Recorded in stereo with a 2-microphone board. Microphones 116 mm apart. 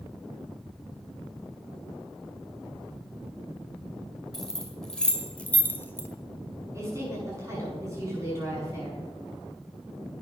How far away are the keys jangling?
About 2 m.